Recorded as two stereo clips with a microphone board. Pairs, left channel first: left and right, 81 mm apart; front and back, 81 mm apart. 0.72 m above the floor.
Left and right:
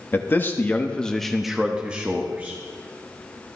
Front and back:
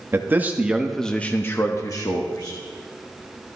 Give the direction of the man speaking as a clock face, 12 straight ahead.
7 o'clock.